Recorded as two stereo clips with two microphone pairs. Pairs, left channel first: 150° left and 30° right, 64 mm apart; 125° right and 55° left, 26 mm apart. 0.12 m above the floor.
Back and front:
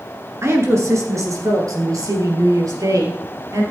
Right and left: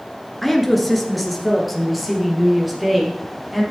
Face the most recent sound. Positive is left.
turn(degrees=-30)